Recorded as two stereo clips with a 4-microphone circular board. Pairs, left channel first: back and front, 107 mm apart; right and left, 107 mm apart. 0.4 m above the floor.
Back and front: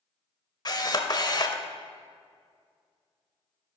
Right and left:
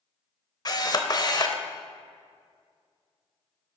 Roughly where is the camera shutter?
Behind right.